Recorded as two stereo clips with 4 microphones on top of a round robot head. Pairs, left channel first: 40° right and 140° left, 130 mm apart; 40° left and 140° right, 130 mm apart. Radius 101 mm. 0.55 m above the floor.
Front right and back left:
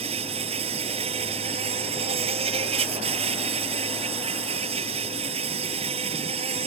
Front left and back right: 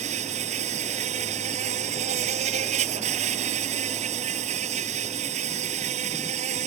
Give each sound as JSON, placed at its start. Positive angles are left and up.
{"t": 0.0, "sound": "an insect", "azimuth_deg": -175}